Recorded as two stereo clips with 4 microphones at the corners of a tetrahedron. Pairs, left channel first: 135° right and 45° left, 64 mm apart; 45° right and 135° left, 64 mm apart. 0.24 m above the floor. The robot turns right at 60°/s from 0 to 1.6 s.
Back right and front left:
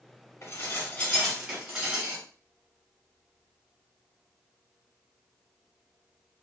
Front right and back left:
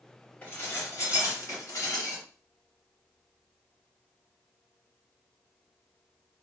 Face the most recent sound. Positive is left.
turn(degrees=-35)